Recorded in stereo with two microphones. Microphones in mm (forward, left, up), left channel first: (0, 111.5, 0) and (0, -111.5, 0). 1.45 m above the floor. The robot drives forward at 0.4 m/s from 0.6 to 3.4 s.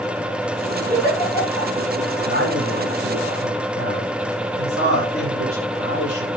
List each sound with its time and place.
0.9 s a giggle: 40° left (ahead or behind), 6.5 m
2.2 s a man speaking: 75° left (ahead or behind), 9 m; by 6.4 s 80° left, 8.5 m